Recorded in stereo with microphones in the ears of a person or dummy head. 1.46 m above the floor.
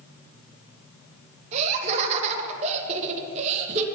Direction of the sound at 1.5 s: 40° right (ahead or behind).